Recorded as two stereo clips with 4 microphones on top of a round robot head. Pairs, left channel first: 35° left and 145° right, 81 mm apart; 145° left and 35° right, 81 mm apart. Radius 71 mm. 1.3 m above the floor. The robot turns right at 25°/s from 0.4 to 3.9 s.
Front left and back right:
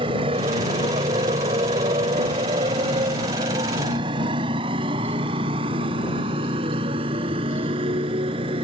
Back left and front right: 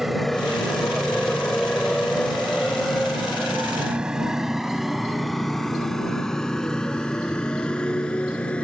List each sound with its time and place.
0.0 s a motorcycle: 125° right; by 8.6 s 140° right